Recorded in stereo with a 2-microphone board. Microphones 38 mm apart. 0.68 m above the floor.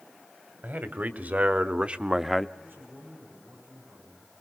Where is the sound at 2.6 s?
80° right, 8 m.